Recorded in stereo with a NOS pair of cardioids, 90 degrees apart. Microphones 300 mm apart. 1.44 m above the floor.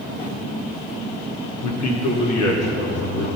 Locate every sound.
1.6 s a man speaking: 65° left, 1.7 m; by 3.3 s 55° left, 4 m